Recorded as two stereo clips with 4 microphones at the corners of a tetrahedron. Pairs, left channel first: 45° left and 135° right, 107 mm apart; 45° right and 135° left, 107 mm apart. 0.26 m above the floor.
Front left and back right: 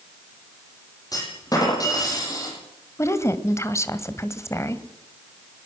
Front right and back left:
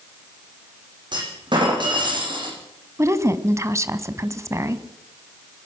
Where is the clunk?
95° left, 8.5 m.